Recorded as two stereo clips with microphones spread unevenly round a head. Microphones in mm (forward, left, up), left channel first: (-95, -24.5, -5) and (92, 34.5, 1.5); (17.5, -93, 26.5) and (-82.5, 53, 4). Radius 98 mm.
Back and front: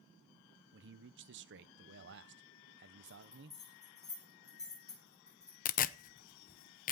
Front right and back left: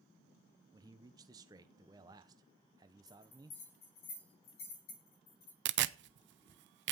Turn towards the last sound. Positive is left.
turn(degrees=150)